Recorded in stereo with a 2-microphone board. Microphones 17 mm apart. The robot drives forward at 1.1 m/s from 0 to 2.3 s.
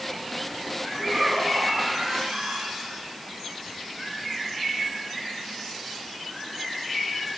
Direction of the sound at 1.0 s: 60° right (ahead or behind).